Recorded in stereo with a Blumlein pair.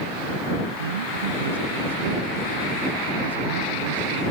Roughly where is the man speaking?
Ahead right.